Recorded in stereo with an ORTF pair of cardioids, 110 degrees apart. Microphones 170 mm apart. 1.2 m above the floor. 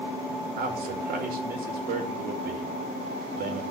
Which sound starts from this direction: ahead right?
A man speaking, at 0.6 s.